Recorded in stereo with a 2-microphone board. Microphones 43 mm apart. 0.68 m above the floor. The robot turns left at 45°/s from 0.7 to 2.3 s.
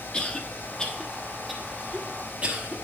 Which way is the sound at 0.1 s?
20° left (ahead or behind).